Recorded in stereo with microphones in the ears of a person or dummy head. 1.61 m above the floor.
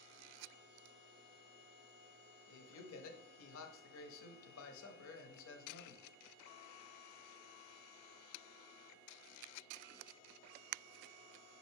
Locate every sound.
2.5 s a man speaking: 75° left (ahead or behind), 0.7 m